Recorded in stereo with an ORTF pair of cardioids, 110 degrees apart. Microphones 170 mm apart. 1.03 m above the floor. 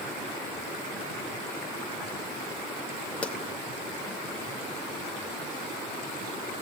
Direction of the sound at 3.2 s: 5° left.